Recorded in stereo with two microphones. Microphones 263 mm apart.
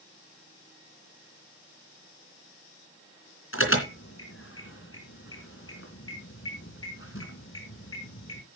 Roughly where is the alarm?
Left.